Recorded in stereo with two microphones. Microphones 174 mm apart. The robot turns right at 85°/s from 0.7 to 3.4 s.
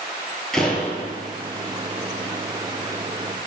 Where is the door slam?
175° left, 1.5 m; by 1.2 s 145° right, 1.5 m.